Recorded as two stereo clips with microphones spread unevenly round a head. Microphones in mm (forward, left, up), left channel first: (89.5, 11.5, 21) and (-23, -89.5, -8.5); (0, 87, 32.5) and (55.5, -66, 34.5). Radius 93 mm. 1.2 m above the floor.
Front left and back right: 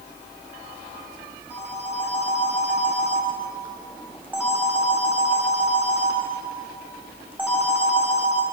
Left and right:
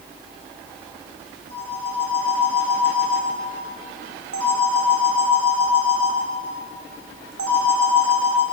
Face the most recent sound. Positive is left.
turn(degrees=-60)